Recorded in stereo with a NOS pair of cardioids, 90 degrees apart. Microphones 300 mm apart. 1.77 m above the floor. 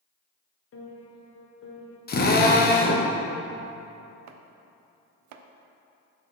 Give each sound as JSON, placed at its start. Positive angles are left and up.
{"t": 0.7, "sound": "a piano", "azimuth_deg": 50, "distance_m": 1.3}
{"t": 2.1, "sound": "a drill", "azimuth_deg": 35, "distance_m": 1.0}
{"t": 4.3, "sound": "chopping", "azimuth_deg": -70, "distance_m": 0.5}